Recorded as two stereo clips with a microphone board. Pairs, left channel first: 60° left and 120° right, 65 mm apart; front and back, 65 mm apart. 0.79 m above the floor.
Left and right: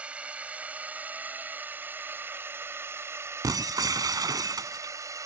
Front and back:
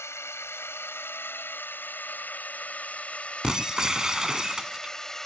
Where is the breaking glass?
100° right.